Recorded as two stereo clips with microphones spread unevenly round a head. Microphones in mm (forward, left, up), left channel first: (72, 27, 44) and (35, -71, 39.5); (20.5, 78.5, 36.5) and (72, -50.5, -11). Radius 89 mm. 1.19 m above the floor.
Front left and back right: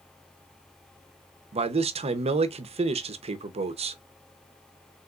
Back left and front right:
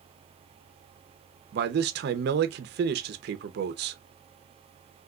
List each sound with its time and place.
1.5 s a man speaking: 85° right, 0.5 m